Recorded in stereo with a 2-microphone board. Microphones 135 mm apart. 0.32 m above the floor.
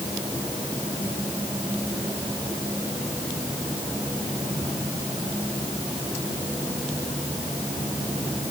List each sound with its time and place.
Only background noise.